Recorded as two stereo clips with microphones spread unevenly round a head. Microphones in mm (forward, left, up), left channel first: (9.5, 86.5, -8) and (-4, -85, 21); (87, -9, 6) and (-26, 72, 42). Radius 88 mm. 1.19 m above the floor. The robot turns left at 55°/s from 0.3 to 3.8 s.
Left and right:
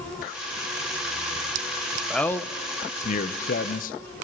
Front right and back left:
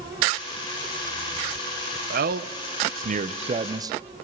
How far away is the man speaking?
About 0.9 m.